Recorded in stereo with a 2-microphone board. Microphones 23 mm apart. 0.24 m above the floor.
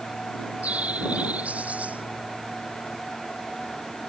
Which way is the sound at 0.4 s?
75° right (ahead or behind).